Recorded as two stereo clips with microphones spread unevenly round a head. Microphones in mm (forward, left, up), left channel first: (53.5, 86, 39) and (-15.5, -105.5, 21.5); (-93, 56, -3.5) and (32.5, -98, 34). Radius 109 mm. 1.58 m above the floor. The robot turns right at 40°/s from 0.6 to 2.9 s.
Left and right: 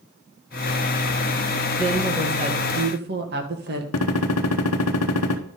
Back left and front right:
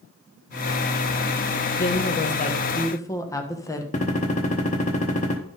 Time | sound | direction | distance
1.8 | a woman speaking | 160° left | 1.4 m
3.9 | a gunshot | 65° left | 0.8 m